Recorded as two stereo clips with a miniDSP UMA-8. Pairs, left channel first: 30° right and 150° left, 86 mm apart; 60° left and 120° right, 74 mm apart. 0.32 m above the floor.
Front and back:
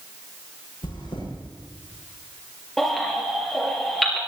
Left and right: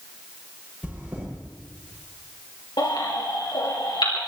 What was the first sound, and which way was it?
Chewing, 45° right.